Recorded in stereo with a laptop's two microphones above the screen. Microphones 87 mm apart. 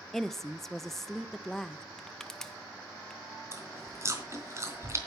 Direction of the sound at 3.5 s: 35° right (ahead or behind).